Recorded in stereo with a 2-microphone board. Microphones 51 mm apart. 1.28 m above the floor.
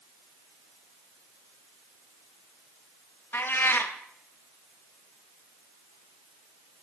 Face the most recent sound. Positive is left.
turn(degrees=45)  # may be behind; listen again after turning